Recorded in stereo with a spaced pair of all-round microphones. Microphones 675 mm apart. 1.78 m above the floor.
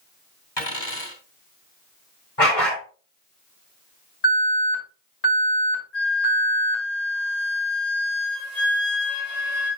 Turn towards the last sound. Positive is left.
turn(degrees=75)  # may be behind; listen again after turning